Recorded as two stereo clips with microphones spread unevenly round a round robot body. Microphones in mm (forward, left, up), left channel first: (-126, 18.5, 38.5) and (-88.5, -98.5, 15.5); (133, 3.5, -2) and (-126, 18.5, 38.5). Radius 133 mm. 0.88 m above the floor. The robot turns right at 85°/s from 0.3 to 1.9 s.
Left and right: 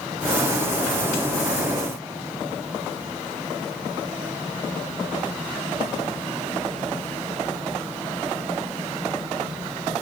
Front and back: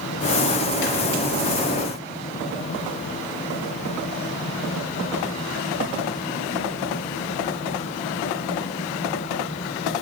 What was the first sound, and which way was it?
Only background noise.